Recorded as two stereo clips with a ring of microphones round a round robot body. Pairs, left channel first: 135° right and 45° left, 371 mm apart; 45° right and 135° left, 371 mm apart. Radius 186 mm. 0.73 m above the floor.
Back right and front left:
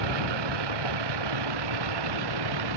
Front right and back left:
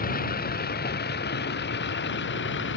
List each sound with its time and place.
0.0 s a vehicle: 25° left; by 2.8 s 15° left